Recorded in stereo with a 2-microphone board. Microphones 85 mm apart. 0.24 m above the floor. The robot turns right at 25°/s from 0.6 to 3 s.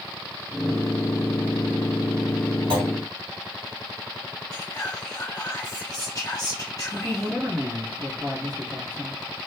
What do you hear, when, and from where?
2.7 s a clunk: 75° right (ahead or behind), 1.5 m; by 2.9 s 70° right (ahead or behind), 1.5 m
4.5 s whispering: 40° left (ahead or behind), 1.5 m
6.9 s a man speaking: 55° right (ahead or behind), 2.5 m